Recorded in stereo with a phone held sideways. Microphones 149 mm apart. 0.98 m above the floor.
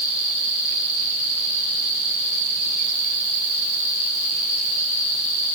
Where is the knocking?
I don't hear knocking.